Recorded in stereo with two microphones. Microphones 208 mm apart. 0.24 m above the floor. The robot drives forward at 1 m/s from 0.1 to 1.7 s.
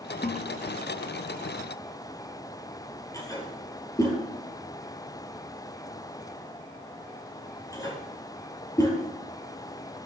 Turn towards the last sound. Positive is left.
turn(degrees=15)  # may be behind; listen again after turning